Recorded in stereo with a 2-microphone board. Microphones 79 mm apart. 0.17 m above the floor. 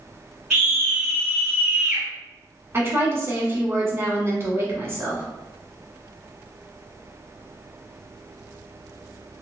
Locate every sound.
0.5 s a scream: 10° right (ahead or behind), 2 m
2.7 s a woman speaking: 35° right (ahead or behind), 1.4 m